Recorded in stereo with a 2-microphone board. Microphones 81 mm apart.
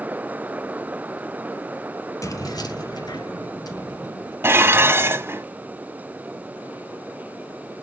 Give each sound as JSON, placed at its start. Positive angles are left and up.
{"t": 2.2, "sound": "keys jangling", "side_deg": 45, "distance_m": 1.1}
{"t": 4.4, "sound": "dishes clattering", "side_deg": -30, "distance_m": 0.8}